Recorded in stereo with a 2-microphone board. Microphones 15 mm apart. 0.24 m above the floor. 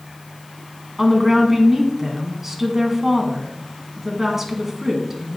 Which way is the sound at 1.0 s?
20° right (ahead or behind).